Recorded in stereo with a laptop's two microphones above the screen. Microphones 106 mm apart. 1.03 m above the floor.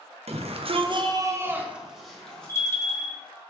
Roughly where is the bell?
Left.